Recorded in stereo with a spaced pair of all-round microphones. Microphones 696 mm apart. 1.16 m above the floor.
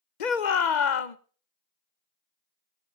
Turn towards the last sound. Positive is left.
turn(degrees=75)  # may be behind; listen again after turning